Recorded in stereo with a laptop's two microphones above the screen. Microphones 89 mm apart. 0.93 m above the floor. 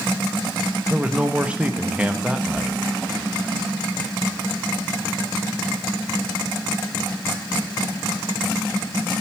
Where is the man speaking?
15° right (ahead or behind), 1.4 m.